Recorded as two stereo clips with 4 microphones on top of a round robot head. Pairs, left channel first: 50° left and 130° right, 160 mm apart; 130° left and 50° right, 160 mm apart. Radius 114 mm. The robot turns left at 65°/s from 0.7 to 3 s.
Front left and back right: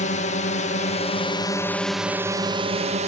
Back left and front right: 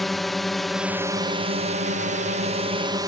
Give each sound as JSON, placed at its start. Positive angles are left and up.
{"t": 0.0, "sound": "a drone", "azimuth_deg": 40}